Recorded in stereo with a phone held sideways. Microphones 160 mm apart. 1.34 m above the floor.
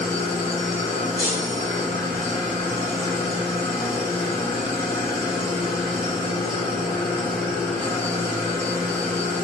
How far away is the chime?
About 1.4 m.